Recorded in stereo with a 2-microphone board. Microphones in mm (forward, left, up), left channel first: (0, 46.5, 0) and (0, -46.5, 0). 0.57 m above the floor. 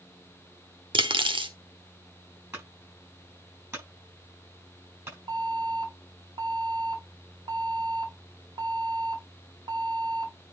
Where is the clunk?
25° right (ahead or behind), 6.5 m.